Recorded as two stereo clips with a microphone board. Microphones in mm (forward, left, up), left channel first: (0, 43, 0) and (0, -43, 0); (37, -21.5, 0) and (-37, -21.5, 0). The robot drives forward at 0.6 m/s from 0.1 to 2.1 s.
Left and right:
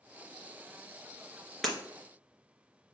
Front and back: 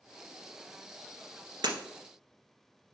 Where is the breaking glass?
Straight behind, 1.5 m.